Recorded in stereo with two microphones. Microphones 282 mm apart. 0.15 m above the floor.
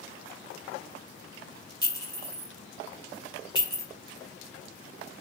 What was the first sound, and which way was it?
A clink, 15° left (ahead or behind).